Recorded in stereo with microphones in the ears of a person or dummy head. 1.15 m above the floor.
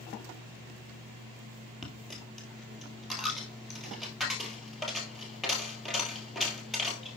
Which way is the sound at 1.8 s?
10° left (ahead or behind).